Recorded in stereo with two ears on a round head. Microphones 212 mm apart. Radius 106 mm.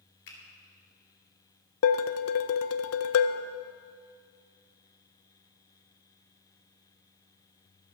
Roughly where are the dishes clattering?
Left.